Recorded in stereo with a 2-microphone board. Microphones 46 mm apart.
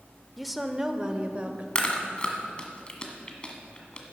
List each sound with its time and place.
0.4 s a woman speaking: centre (ahead or behind), 0.8 m; by 1.6 s 35° right (ahead or behind), 1.1 m
1.8 s chewing: 25° left (ahead or behind), 1.7 m